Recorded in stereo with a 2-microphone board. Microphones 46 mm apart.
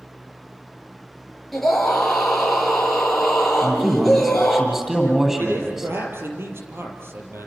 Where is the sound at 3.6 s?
10° right (ahead or behind), 9.5 m.